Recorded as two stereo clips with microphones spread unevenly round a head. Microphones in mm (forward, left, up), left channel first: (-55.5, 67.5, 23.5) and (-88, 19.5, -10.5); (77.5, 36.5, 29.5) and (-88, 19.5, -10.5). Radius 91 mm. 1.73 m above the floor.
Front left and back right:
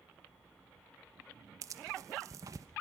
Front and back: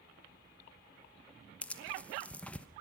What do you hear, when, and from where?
1.6 s tearing paper: 55° right, 1.0 m